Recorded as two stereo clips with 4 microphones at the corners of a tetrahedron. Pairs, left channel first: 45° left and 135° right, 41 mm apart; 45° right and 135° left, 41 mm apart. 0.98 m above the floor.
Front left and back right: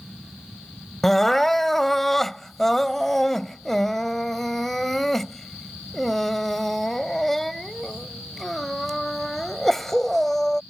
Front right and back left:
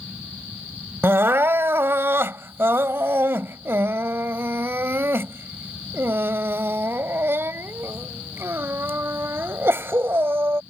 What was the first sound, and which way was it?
Crying, 130° left.